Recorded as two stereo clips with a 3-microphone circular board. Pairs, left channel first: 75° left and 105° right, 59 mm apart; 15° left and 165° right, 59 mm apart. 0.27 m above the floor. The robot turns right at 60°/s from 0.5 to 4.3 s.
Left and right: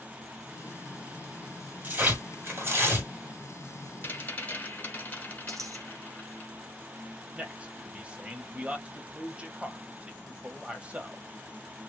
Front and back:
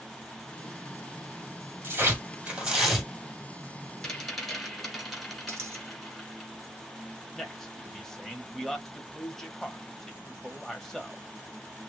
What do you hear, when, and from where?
1.8 s tearing paper: 145° right, 1.9 m; by 3.1 s 70° right, 1.9 m
4.0 s a rattle: 85° left, 1.8 m; by 6.5 s 100° left, 1.8 m
5.5 s a dropped coin: 120° right, 1.4 m
7.3 s a man speaking: 60° right, 1.0 m